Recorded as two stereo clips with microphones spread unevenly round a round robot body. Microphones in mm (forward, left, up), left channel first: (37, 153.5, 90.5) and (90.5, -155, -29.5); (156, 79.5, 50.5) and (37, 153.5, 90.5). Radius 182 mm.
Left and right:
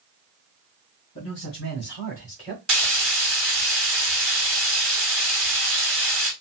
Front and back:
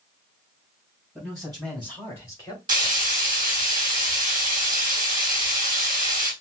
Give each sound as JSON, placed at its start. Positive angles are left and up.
{"t": 1.1, "sound": "a man speaking", "azimuth_deg": 50, "distance_m": 2.5}
{"t": 2.7, "sound": "frying", "azimuth_deg": -145, "distance_m": 1.9}